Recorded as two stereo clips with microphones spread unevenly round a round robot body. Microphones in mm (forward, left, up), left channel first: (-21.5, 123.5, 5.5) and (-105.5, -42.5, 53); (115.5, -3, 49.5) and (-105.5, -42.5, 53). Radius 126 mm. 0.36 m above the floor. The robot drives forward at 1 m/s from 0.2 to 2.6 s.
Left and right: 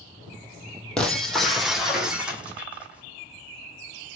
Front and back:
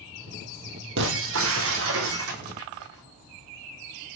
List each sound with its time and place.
1.0 s breaking glass: 150° left, 3 m; by 4.2 s 160° left, 4.5 m